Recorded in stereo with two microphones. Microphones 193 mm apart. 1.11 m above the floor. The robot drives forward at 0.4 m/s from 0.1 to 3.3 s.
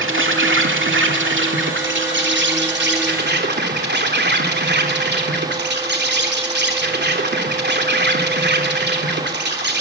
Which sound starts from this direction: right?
An insect, at 0.0 s.